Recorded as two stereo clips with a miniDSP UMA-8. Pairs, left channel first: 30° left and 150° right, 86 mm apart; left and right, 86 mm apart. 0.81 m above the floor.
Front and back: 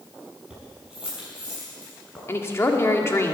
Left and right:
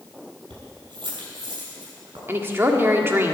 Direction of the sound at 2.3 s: 30° right.